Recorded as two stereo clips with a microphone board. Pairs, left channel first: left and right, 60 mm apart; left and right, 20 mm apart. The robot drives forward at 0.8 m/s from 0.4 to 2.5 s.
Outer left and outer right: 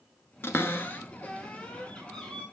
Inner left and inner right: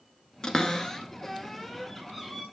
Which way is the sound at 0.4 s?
45° left (ahead or behind).